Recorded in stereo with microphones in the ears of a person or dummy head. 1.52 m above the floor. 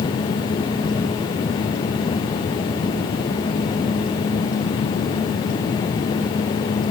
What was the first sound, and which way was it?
Only background noise.